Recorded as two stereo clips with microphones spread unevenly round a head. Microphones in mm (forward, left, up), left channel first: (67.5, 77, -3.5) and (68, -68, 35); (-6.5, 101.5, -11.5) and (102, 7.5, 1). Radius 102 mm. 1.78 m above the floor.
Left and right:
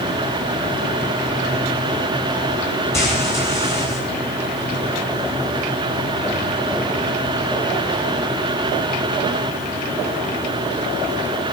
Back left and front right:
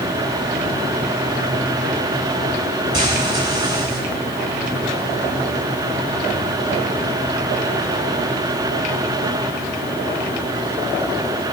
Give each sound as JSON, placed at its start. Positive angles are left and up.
{"t": 2.9, "sound": "frying", "azimuth_deg": 15, "distance_m": 8.0}